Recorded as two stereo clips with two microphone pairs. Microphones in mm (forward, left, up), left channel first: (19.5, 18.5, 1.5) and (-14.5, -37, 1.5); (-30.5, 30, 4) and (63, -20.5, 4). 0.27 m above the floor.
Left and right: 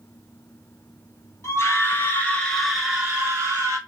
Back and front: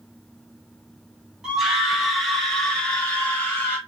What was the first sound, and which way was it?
A scream, 55° left.